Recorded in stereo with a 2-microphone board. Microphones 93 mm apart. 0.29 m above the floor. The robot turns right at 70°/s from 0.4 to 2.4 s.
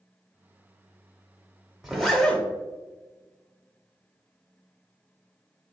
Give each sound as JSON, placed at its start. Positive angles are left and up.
{"t": 1.8, "sound": "a zipper", "side_deg": 0, "distance_m": 0.9}